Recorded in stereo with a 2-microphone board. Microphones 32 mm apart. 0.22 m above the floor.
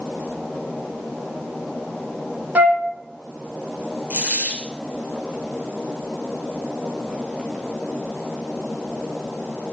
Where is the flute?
60° right (ahead or behind), 1.5 m.